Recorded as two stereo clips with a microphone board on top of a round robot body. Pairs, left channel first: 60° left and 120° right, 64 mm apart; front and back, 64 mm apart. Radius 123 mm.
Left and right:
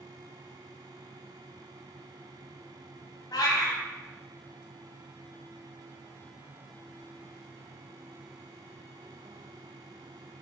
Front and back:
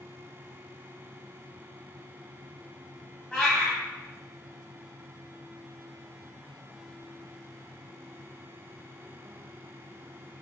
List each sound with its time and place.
3.3 s a cat meowing: 80° left, 0.7 m